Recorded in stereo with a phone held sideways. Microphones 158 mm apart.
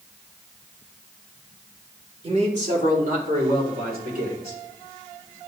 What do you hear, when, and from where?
2.2 s a man speaking: 40° right (ahead or behind), 2.5 m; by 4.6 s 75° right (ahead or behind), 5 m